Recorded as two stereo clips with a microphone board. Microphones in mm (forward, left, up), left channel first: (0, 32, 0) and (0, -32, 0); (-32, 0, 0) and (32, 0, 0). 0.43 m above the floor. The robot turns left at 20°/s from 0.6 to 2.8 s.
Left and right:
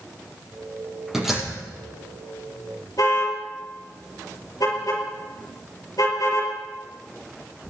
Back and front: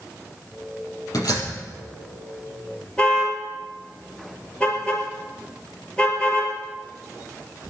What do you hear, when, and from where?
1.1 s a door slam: 175° right, 7.5 m; by 1.5 s straight behind, 7.5 m
3.0 s a car horn: 105° left, 5.5 m